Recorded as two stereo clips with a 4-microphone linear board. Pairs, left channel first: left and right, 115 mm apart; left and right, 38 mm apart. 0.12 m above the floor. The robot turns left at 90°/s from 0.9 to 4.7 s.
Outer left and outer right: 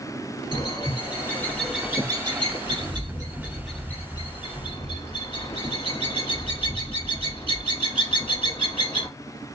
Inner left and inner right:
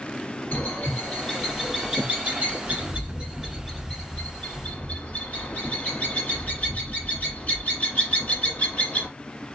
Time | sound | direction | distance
0.5 | a bird | 45° left (ahead or behind) | 2 m